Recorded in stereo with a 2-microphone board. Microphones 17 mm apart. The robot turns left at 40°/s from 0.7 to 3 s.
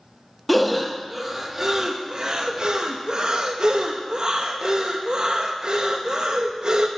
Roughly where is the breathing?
Centre.